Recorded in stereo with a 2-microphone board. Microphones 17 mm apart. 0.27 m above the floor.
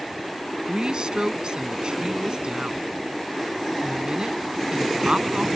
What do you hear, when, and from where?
0.7 s a woman speaking: 60° right (ahead or behind)